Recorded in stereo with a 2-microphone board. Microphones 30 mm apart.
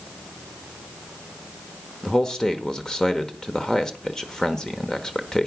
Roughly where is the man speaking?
Centre.